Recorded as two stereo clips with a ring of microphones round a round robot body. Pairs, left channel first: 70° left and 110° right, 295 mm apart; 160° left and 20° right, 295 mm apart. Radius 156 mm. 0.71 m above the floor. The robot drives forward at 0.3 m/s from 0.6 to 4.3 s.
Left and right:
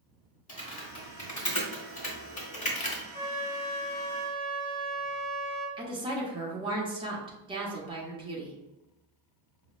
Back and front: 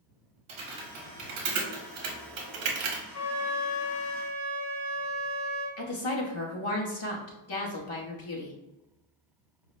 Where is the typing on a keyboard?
5° left, 1.5 m.